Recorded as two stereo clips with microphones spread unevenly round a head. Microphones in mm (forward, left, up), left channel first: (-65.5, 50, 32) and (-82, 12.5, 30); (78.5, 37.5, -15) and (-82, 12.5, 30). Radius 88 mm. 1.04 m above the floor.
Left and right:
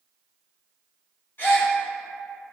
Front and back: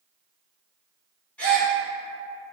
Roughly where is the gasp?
Left.